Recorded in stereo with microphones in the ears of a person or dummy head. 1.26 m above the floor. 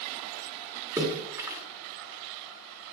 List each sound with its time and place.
1.0 s a splash: 15° right (ahead or behind), 1.9 m